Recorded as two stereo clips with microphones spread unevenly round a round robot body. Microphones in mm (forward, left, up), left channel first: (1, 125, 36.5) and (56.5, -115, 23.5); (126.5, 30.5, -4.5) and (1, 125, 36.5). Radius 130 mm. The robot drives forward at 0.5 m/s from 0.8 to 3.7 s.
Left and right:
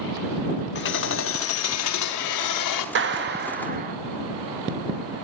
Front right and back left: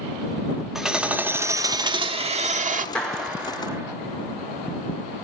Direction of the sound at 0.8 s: 55° left.